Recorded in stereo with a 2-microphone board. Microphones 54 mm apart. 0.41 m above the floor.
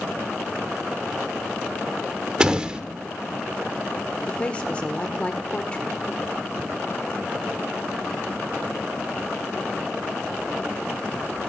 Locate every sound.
2.4 s a door slam: 20° right (ahead or behind), 0.6 m
4.3 s a woman speaking: 25° left (ahead or behind), 0.8 m